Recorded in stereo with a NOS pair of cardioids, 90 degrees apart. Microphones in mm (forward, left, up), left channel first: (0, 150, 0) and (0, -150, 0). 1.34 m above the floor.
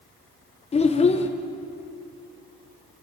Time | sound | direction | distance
0.7 | a child speaking | 20° left | 0.5 m